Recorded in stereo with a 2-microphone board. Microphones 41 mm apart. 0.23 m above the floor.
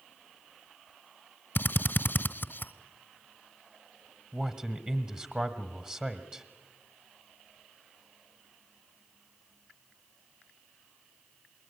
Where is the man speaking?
25° right (ahead or behind), 1.4 m.